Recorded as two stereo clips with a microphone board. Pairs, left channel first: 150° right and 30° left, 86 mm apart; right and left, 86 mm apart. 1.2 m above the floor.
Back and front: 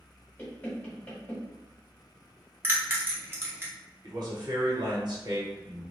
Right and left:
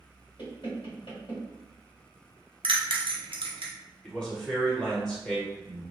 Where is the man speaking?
10° right, 1.2 m.